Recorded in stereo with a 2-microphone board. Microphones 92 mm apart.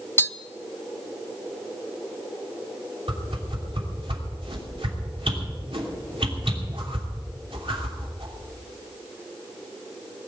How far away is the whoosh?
About 3 m.